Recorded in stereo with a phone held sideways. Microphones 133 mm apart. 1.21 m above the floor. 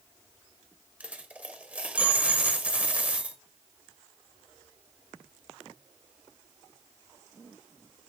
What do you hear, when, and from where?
1.0 s a dropped coin: 10° right (ahead or behind), 1.0 m